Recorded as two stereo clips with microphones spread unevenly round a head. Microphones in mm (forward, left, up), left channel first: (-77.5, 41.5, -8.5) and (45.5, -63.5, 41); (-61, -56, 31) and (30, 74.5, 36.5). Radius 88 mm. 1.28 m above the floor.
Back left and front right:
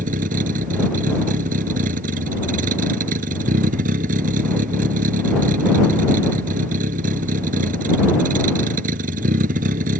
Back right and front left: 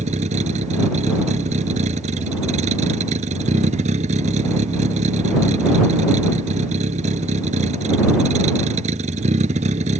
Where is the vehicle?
5° left.